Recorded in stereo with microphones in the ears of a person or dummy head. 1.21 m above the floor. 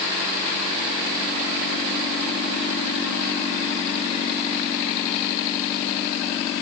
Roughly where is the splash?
No splash in this recording.